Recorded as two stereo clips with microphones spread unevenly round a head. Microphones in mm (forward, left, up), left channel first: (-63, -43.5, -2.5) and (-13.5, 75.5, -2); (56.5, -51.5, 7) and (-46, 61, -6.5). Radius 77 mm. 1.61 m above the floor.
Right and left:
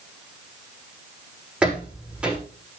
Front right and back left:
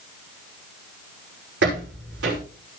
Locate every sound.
1.6 s footsteps: 150° left, 6 m